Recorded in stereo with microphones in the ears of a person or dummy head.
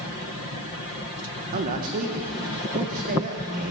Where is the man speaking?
45° right (ahead or behind), 1.5 m.